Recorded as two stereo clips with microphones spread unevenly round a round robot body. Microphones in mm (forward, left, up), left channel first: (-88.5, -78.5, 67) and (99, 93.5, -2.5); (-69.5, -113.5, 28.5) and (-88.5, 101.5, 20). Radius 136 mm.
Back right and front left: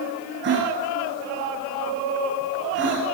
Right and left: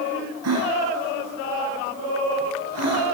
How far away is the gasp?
About 8 m.